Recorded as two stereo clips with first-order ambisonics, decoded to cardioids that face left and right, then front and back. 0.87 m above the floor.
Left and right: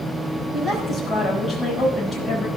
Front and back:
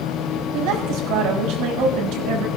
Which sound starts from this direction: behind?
A woman speaking, at 0.5 s.